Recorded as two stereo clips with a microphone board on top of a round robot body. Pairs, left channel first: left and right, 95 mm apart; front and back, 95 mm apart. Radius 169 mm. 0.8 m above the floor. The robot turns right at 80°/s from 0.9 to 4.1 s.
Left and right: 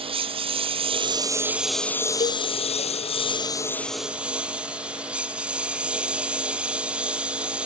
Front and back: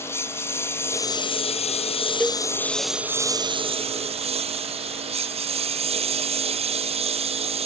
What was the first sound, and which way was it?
A lawn mower, 65° right.